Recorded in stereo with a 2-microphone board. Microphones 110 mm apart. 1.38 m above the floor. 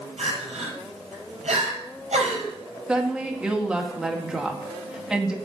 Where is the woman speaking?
10° right (ahead or behind), 2.0 m.